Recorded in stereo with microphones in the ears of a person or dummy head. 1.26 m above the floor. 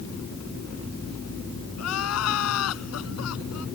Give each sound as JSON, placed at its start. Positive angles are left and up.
{"t": 1.8, "sound": "crying", "side_deg": 80}